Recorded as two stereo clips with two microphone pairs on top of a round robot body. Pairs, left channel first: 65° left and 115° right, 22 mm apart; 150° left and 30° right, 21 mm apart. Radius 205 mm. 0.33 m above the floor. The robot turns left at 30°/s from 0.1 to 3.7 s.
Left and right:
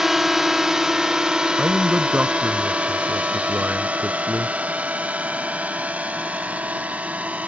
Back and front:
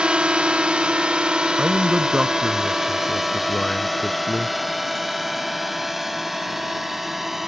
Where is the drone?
40° right; by 7.5 s 105° right.